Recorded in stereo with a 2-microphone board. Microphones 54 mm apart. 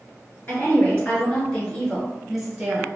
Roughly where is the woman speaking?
Left.